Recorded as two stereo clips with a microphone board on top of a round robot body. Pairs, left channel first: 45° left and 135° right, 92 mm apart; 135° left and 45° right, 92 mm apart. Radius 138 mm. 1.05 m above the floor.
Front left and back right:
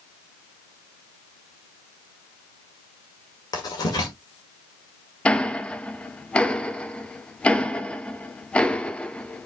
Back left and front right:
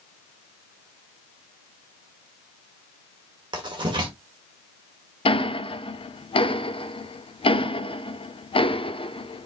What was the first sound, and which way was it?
Writing, 5° right.